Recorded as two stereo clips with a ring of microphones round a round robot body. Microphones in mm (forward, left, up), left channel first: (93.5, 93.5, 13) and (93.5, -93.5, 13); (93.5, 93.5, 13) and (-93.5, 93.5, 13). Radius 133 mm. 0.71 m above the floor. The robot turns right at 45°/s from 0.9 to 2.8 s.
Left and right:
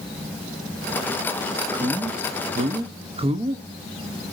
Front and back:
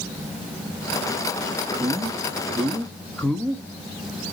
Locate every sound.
1.7 s a man speaking: 130° right, 0.8 m; by 3.6 s 80° right, 0.8 m